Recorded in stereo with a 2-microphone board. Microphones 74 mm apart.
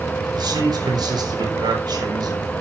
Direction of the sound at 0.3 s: 75° right (ahead or behind).